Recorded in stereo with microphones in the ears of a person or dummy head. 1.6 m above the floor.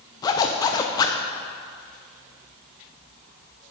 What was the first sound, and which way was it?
A zipper, 20° left (ahead or behind).